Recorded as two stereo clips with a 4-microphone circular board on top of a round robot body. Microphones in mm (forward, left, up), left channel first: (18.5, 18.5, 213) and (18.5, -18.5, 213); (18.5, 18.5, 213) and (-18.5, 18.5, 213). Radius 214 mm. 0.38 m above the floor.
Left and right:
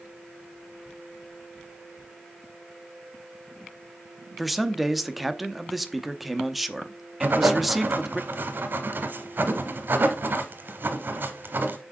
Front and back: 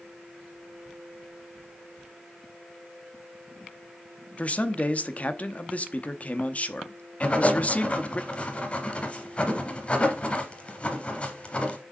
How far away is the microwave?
I don't hear a microwave.